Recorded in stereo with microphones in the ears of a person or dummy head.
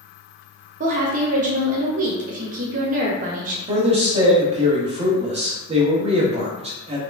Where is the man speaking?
35° right (ahead or behind), 0.6 m.